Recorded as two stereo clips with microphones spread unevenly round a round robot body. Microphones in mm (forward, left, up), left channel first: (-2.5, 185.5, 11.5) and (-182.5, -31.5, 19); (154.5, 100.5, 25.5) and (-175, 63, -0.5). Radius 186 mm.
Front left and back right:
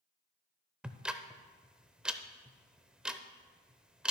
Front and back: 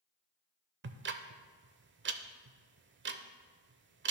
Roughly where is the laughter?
No laughter in this recording.